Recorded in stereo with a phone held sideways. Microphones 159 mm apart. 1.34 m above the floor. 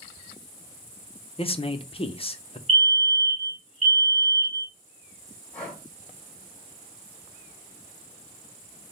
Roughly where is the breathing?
Centre.